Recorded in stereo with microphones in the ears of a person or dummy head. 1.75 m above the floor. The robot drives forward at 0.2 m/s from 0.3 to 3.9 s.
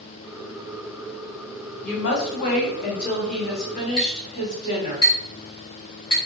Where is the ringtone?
No ringtone in this recording.